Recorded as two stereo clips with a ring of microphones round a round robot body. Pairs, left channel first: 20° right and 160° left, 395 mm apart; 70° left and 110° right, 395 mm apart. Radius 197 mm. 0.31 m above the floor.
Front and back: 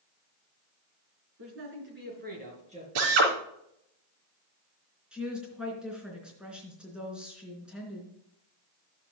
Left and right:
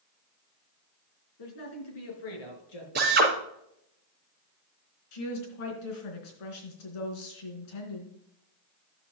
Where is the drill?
Straight behind, 3.5 m.